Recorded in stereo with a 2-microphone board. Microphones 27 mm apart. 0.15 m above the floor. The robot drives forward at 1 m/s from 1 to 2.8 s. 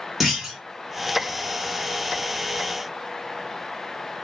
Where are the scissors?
No scissors in this recording.